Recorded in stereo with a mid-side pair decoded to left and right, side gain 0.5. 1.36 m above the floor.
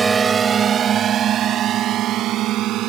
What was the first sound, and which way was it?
A drone, 30° right.